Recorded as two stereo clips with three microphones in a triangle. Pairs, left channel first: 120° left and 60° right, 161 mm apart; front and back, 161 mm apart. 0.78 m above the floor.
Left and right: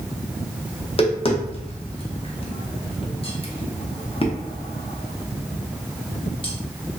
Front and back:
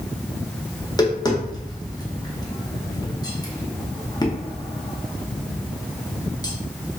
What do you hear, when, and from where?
0.8 s tapping: 65° left, 0.6 m